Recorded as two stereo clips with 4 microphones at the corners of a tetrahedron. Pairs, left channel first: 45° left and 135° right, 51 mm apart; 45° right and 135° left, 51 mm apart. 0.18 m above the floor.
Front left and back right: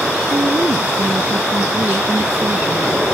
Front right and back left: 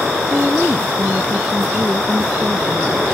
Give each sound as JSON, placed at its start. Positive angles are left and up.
{"t": 0.3, "sound": "a woman speaking", "azimuth_deg": -150}